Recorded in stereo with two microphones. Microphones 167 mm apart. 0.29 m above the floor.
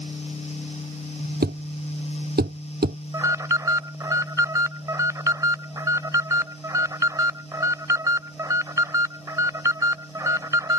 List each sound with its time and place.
1.4 s a thud: 75° right (ahead or behind)
3.1 s an alarm: 20° right (ahead or behind)